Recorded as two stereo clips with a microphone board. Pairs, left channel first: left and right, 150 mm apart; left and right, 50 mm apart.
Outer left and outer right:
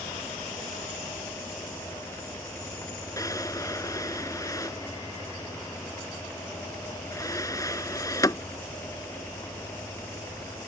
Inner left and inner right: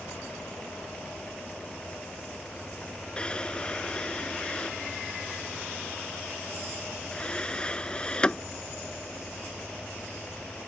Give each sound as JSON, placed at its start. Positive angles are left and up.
{"t": 3.2, "sound": "a drawer", "side_deg": 25}